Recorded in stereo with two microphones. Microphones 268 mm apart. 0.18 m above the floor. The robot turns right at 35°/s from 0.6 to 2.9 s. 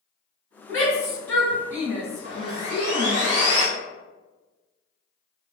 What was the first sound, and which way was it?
A shout, 25° right (ahead or behind).